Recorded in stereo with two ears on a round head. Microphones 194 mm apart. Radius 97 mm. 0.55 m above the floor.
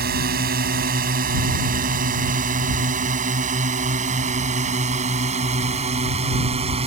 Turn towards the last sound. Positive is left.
turn(degrees=-30)  # may be behind; listen again after turning